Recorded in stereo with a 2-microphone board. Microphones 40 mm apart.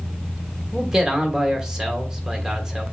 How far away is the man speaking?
About 1.2 m.